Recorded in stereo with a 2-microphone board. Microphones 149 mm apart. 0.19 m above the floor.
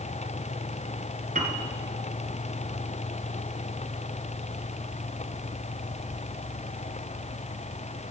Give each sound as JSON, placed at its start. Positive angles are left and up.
{"t": 1.4, "sound": "a piano", "side_deg": -60, "distance_m": 1.8}